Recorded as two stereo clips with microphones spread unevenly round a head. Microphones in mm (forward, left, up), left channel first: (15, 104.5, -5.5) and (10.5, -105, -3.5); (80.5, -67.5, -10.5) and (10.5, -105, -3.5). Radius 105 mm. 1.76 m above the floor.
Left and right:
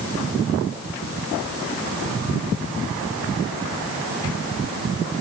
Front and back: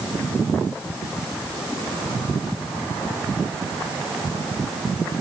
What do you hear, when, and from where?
Only background noise.